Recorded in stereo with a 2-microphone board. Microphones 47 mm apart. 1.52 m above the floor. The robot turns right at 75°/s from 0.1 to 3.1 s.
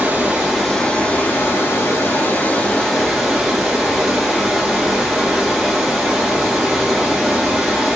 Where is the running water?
45° right, 1.7 m; by 8.0 s straight behind, 1.7 m.